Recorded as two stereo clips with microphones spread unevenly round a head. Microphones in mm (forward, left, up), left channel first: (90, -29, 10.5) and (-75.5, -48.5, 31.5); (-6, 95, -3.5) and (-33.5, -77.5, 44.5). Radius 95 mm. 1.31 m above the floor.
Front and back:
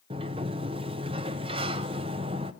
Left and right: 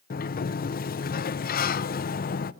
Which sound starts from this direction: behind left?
A sliding door, at 0.1 s.